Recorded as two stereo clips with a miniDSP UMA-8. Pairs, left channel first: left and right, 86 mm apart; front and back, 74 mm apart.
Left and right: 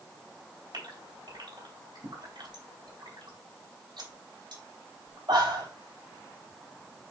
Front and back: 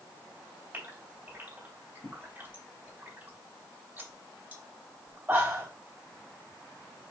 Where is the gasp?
120° right, 3 m.